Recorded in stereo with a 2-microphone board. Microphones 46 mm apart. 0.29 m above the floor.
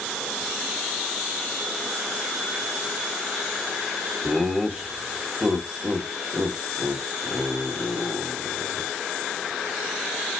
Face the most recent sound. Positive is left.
turn(degrees=-25)  # may be behind; listen again after turning